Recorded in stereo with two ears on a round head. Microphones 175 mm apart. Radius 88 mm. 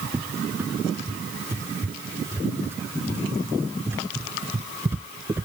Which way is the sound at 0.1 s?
10° right (ahead or behind).